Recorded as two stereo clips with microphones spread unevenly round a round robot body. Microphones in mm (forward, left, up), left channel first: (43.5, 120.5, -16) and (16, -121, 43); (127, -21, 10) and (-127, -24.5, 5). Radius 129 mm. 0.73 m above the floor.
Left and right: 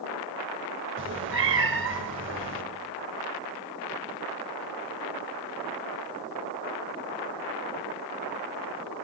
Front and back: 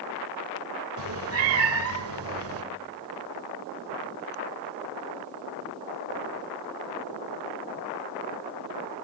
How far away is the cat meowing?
About 1.6 m.